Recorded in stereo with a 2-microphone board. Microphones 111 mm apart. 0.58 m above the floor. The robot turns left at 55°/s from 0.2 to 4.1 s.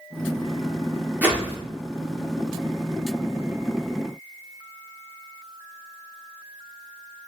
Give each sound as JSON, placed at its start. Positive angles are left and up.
{"t": 1.2, "sound": "a whoosh", "side_deg": -15, "distance_m": 1.0}